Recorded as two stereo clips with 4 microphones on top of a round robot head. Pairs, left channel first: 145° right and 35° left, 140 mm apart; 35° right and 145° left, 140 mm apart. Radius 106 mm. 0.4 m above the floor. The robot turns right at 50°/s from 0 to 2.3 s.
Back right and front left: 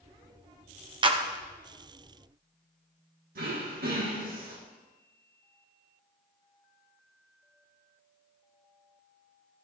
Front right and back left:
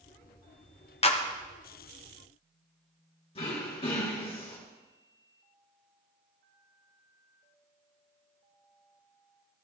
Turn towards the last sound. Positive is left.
turn(degrees=15)